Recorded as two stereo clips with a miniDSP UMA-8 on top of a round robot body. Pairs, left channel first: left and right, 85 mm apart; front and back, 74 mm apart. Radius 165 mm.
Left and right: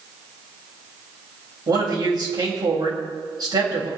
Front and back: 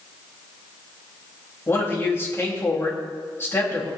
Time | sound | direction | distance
1.7 | a man speaking | 55° right | 3.5 m